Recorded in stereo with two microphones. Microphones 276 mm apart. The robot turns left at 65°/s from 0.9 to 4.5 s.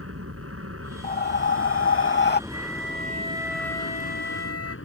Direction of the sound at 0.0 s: 65° right.